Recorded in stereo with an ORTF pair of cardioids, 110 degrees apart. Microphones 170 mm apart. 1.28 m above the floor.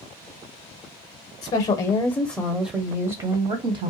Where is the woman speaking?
40° left, 0.8 m; by 3.9 s 45° right, 1.1 m.